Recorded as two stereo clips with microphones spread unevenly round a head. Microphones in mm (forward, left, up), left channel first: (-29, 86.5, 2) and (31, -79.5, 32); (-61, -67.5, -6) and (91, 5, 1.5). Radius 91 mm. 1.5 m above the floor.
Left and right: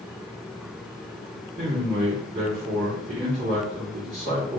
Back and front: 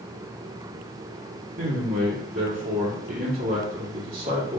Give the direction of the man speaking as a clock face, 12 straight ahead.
1 o'clock.